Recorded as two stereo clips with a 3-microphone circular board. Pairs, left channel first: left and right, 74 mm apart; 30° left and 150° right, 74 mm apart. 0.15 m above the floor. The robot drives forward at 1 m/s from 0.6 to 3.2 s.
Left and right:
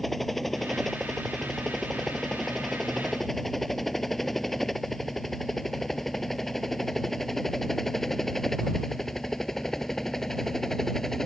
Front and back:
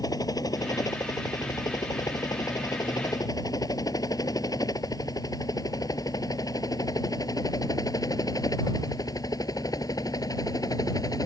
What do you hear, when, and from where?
0.0 s a helicopter: straight ahead; by 11.3 s 5° left